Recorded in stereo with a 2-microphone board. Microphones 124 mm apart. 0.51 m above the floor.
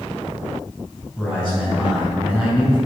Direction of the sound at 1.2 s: 5° left (ahead or behind).